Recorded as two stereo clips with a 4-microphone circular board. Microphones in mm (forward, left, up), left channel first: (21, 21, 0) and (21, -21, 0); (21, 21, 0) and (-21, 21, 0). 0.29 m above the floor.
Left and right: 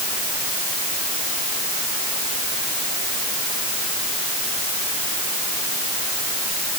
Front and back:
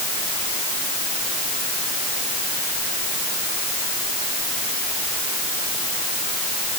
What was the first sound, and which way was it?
Only background noise.